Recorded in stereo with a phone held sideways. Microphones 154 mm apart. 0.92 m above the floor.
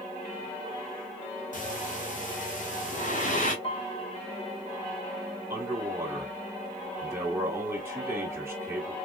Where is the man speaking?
15° right (ahead or behind), 1.8 m.